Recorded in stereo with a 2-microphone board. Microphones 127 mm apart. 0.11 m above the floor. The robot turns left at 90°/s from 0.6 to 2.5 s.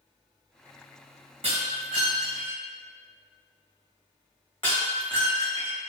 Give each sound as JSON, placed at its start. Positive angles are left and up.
{"t": 1.4, "sound": "breaking glass", "side_deg": -55, "distance_m": 2.0}